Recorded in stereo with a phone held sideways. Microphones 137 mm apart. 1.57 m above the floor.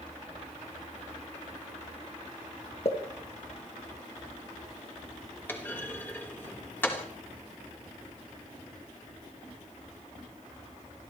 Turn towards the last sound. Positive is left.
turn(degrees=15)  # may be behind; listen again after turning